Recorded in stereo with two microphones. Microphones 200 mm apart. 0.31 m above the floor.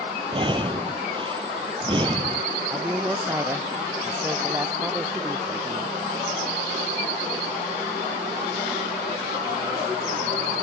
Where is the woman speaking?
15° right (ahead or behind).